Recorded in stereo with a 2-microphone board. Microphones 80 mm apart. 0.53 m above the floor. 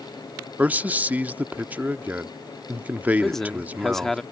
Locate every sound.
0.6 s a man speaking: 20° right (ahead or behind)
3.2 s a man speaking: 5° left (ahead or behind)